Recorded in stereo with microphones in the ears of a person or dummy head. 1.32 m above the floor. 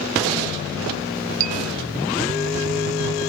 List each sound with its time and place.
1.4 s a bell: 45° right (ahead or behind)